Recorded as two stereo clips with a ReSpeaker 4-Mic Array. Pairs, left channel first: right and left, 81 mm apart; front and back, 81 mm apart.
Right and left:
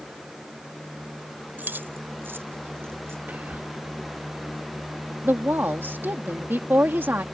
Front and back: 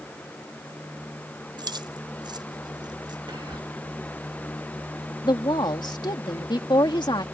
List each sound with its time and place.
1.6 s keys jangling: 155° left; by 3.2 s 150° left
3.3 s whispering: 160° left
5.2 s a woman speaking: 25° left